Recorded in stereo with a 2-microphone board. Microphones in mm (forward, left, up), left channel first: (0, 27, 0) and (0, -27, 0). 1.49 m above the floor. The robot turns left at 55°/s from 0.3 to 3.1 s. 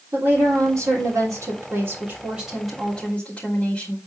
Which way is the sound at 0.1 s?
60° right.